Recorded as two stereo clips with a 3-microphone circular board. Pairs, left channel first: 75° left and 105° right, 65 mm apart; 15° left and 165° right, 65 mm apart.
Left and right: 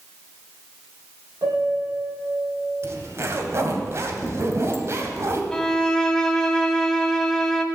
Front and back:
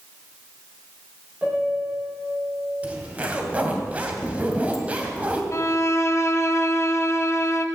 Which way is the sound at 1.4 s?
95° right.